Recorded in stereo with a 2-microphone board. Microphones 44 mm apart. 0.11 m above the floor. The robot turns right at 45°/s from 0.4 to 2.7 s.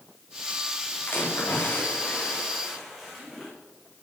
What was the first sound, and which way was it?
A splash, 110° left.